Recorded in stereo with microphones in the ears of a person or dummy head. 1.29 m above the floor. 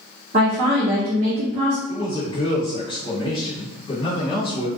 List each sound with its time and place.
0.3 s a woman speaking: 40° right (ahead or behind), 0.6 m
1.9 s a man speaking: 25° left (ahead or behind), 1.5 m